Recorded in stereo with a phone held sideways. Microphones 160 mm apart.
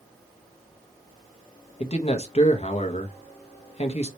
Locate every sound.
1.8 s a man speaking: 40° left (ahead or behind), 1.0 m